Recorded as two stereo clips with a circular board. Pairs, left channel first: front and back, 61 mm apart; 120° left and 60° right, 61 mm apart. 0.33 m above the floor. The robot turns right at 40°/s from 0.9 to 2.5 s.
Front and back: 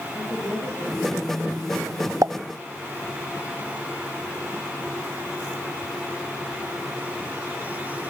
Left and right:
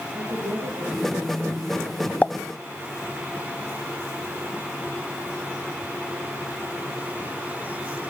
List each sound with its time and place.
0.1 s a woman speaking: 45° right, 8.5 m; by 2.1 s 5° left, 8.5 m
2.2 s a pop: straight behind, 0.6 m; by 2.3 s 175° right, 0.6 m